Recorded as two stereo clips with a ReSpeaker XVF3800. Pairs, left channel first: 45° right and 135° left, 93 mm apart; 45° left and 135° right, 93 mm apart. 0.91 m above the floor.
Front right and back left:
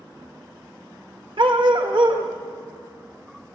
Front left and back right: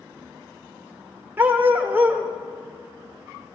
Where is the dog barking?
155° left, 1.1 m.